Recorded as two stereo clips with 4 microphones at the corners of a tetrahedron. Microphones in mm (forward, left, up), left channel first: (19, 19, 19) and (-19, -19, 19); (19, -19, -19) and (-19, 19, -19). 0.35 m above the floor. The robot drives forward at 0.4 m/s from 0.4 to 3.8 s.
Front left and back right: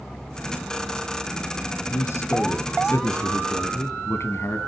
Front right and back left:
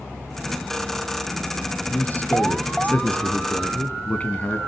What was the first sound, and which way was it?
A man speaking, 15° left.